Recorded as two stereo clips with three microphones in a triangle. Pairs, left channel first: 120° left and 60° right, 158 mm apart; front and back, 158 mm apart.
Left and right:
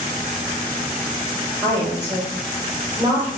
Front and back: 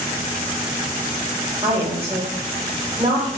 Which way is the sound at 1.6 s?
130° right.